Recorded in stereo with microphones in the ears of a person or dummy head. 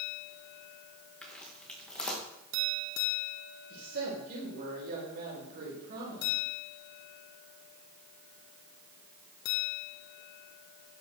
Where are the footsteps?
5° left (ahead or behind), 6 m.